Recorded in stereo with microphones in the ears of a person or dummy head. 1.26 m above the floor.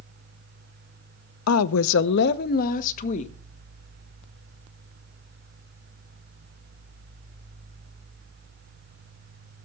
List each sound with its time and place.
1.5 s a woman speaking: 80° left, 0.7 m; by 3.3 s 40° left (ahead or behind), 1.4 m